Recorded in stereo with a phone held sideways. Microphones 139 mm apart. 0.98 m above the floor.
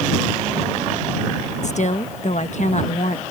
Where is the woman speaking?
55° left (ahead or behind).